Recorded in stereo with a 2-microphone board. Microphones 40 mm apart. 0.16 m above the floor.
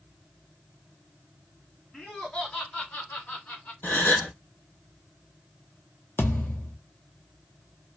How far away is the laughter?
About 2 m.